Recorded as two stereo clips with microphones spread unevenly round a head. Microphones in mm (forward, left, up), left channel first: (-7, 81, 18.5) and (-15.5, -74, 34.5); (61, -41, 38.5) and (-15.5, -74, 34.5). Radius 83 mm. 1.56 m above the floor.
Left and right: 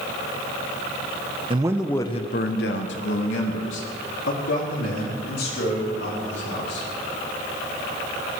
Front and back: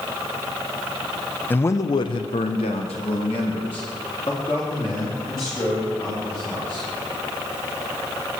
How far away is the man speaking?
About 0.7 m.